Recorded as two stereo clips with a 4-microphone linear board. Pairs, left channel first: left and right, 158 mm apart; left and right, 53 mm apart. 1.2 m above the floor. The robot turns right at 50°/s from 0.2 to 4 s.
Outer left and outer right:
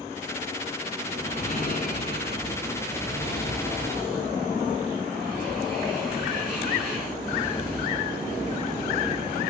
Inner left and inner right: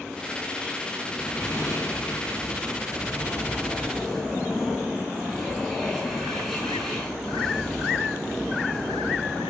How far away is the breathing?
About 8.5 m.